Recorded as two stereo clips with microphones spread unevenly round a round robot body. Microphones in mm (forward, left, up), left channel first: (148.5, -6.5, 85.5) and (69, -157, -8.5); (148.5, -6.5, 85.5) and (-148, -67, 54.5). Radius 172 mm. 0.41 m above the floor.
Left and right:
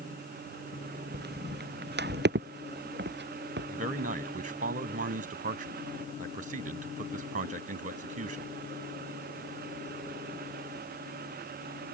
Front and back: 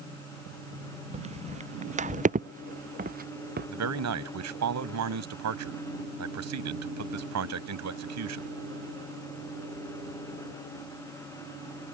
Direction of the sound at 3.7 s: 140° right.